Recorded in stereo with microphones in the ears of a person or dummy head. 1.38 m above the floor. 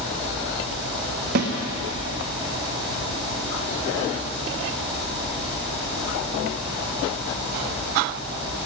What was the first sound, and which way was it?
A snare drum, 55° right (ahead or behind).